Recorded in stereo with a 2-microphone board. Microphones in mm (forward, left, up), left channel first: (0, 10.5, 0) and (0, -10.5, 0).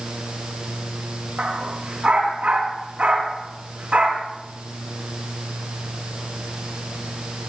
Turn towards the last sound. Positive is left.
turn(degrees=-75)  # may be behind; listen again after turning